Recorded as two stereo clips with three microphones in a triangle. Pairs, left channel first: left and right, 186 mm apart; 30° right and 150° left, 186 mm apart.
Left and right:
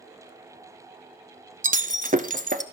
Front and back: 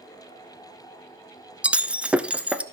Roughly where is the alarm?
No alarm in this recording.